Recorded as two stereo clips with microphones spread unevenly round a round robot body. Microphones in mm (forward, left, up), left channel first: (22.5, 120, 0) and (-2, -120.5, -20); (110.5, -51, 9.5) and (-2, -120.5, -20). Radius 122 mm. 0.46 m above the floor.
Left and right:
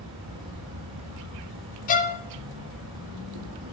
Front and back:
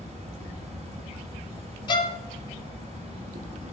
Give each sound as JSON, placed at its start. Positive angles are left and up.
{"t": 0.0, "sound": "an insect", "azimuth_deg": -115, "distance_m": 4.5}
{"t": 1.9, "sound": "a violin", "azimuth_deg": 80, "distance_m": 0.6}